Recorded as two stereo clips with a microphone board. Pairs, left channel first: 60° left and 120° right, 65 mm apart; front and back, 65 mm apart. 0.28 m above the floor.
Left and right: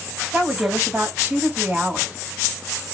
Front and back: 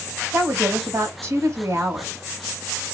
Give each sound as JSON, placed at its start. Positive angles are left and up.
{"t": 0.3, "sound": "a woman speaking", "azimuth_deg": -175, "distance_m": 2.0}